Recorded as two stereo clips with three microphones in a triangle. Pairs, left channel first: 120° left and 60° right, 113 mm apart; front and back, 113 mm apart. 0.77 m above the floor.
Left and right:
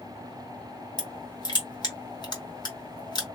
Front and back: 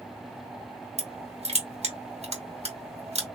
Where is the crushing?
170° left, 1.8 m.